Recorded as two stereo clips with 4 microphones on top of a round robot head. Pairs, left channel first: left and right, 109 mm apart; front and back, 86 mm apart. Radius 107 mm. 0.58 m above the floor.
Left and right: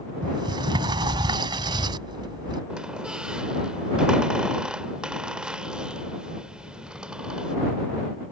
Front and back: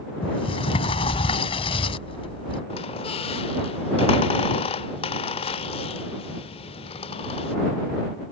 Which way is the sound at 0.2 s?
30° right.